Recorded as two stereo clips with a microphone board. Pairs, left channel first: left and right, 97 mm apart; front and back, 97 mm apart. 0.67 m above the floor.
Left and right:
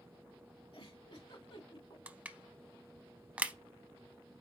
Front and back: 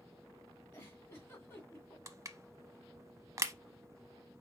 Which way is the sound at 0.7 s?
65° left.